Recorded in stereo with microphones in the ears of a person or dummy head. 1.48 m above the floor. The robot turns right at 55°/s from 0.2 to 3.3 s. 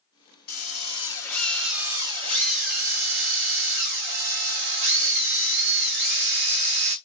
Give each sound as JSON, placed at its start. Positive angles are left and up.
{"t": 0.5, "sound": "a drill", "azimuth_deg": 110, "distance_m": 1.0}